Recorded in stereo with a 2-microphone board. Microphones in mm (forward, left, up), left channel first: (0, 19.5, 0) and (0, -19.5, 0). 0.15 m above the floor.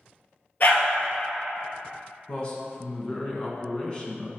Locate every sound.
0.6 s a dog barking: 50° left (ahead or behind), 1.3 m
2.3 s a man speaking: 25° left (ahead or behind), 1.1 m